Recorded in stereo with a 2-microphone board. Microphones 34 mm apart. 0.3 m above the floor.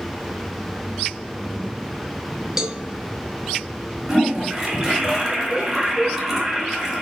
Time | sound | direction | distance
2.6 | a cowbell | 15° right (ahead or behind) | 0.6 m
4.1 | a toilet flushing | 10° right (ahead or behind) | 1.4 m